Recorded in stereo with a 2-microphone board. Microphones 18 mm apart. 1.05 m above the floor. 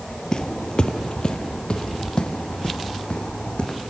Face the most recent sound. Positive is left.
turn(degrees=65)  # may be behind; listen again after turning